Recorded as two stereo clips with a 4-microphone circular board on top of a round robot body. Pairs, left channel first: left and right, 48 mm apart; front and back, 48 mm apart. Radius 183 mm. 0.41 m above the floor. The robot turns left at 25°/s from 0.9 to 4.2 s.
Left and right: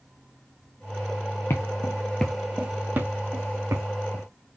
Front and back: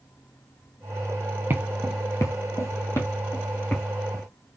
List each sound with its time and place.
1.5 s footsteps: 135° left, 0.8 m; by 4.2 s 75° right, 3 m